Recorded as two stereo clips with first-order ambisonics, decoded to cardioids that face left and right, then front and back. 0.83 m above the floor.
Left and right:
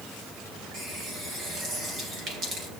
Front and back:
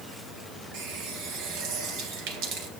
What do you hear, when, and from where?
0.7 s a running tap: 155° right, 3.5 m